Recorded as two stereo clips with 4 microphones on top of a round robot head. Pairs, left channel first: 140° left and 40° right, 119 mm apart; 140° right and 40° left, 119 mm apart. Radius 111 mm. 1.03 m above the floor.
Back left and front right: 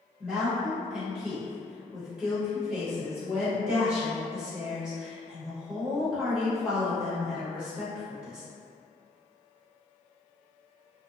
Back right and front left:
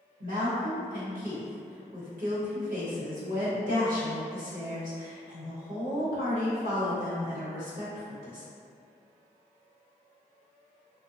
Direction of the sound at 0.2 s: 40° left.